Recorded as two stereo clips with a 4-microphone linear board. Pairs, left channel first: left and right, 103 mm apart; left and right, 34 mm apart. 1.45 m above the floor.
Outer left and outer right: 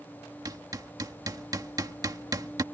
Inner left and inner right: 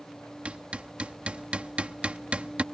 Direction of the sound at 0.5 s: 35° right (ahead or behind).